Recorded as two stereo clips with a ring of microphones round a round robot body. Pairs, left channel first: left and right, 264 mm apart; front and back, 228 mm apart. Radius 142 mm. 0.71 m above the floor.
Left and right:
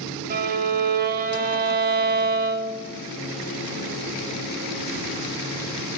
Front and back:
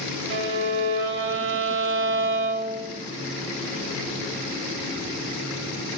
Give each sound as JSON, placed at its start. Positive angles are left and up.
{"t": 0.3, "sound": "a violin", "azimuth_deg": -145, "distance_m": 1.7}